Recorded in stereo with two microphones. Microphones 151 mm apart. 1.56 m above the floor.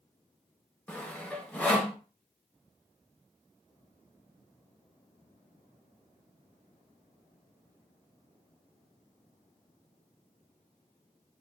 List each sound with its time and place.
0.9 s sawing: 10° left (ahead or behind), 0.8 m